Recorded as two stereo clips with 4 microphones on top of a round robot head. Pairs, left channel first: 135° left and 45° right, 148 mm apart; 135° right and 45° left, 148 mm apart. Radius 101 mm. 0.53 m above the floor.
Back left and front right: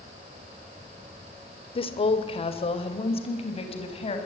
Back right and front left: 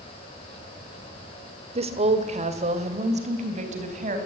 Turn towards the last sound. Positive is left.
turn(degrees=85)